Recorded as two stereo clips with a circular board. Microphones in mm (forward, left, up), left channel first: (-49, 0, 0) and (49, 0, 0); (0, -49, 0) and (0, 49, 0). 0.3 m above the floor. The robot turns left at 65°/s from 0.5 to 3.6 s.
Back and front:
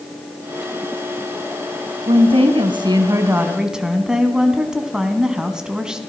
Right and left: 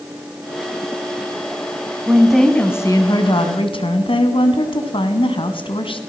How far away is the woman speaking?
About 3 m.